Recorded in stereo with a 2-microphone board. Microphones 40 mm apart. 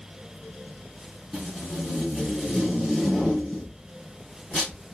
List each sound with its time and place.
1.3 s tape being pulled: 5° left (ahead or behind), 3 m